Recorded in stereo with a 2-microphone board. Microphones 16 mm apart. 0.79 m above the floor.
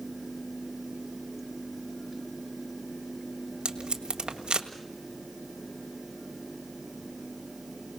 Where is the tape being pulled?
85° right, 1.7 m.